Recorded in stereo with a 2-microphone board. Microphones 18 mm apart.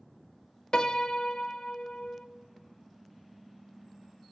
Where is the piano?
50° left (ahead or behind), 0.9 m.